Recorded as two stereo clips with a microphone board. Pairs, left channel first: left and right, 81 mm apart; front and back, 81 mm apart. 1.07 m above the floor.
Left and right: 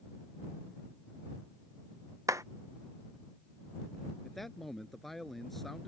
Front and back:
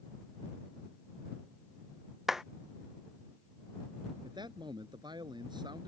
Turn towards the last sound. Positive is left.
turn(degrees=180)